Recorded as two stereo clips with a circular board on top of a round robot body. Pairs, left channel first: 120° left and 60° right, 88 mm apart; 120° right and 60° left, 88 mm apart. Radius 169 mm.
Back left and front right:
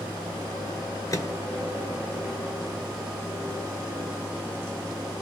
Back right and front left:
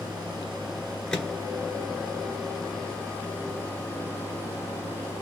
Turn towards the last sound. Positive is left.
turn(degrees=165)